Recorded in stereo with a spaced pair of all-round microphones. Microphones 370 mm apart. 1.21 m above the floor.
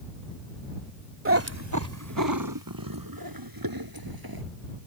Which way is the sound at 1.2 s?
35° right (ahead or behind).